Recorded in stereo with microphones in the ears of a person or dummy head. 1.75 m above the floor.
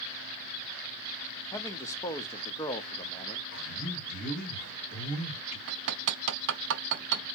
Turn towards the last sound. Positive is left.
turn(degrees=-65)  # may be behind; listen again after turning